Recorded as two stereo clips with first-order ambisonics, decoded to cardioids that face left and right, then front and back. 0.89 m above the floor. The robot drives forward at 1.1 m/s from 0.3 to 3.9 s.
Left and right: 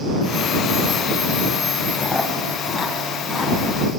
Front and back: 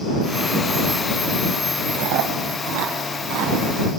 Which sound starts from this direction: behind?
Chewing, at 1.9 s.